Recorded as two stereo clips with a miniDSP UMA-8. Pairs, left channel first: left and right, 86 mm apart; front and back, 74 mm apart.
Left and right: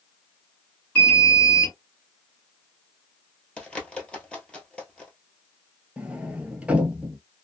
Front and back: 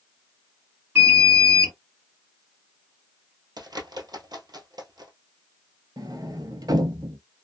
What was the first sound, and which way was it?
An alarm, 150° left.